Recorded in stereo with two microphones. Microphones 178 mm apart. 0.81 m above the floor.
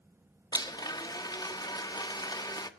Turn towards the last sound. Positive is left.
turn(degrees=20)  # may be behind; listen again after turning